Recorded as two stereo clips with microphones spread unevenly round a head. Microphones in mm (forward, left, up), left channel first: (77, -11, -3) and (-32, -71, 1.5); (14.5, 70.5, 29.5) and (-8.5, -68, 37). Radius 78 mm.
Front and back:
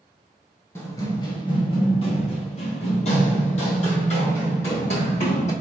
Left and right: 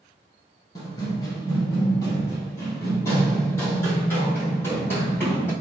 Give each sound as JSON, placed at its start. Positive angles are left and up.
{"t": 0.8, "sound": "running footsteps", "azimuth_deg": 55, "distance_m": 1.1}